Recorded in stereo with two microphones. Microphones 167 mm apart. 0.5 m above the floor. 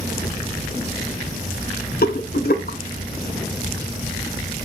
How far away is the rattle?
About 0.6 m.